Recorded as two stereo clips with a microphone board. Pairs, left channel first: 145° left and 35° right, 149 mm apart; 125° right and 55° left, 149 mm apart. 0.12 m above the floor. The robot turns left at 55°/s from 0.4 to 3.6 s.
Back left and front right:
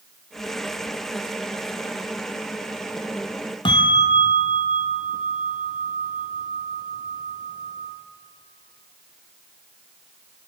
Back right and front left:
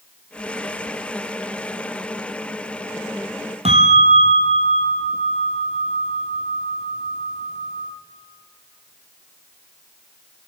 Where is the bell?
95° left, 1.2 m.